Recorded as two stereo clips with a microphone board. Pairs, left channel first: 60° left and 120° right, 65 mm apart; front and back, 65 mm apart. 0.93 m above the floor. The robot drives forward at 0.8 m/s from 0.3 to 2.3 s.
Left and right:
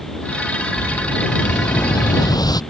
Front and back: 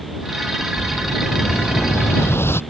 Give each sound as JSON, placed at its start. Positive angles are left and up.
{"t": 0.8, "sound": "an explosion", "azimuth_deg": 50}